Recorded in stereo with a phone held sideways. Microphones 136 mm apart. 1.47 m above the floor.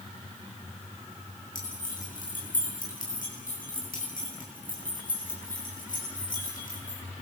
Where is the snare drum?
I don't hear a snare drum.